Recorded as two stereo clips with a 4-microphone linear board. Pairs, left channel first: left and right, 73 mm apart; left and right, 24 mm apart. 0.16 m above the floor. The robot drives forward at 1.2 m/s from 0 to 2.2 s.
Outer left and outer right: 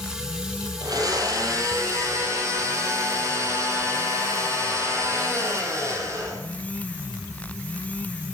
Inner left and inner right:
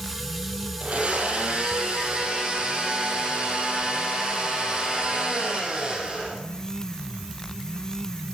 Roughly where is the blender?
Right.